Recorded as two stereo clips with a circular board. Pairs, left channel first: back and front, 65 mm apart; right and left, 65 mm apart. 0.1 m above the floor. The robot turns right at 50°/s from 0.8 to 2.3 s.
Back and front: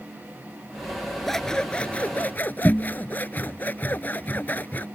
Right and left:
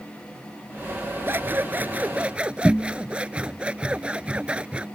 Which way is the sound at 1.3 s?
95° left.